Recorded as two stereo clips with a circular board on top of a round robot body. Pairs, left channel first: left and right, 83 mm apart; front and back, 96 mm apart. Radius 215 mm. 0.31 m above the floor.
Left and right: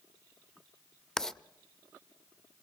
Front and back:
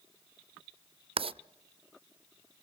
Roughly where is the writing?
Behind.